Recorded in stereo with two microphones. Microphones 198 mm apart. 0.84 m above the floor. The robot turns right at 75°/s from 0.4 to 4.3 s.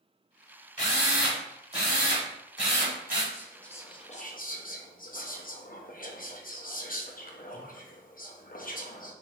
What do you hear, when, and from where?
0.8 s a drill: 140° left, 1.6 m; by 3.2 s 35° right, 1.6 m
3.3 s whispering: 15° right, 0.8 m; by 9.1 s 55° left, 0.8 m